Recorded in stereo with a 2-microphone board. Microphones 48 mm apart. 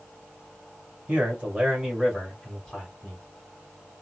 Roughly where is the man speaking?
Right.